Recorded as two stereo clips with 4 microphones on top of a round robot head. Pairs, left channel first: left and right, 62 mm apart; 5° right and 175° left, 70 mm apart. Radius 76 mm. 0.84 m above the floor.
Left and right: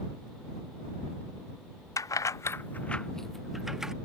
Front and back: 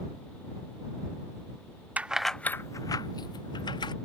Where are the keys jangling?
110° left; by 3.9 s 5° right.